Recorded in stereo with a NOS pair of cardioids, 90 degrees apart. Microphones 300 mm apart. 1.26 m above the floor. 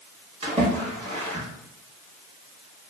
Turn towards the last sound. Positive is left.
turn(degrees=-20)